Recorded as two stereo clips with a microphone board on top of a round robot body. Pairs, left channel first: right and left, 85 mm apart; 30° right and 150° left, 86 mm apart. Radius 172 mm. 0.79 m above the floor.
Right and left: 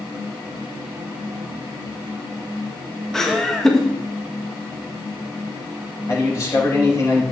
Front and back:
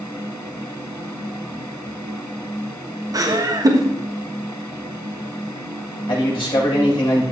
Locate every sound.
3.1 s laughter: 175° right, 1.6 m
6.1 s a man speaking: 40° right, 5.5 m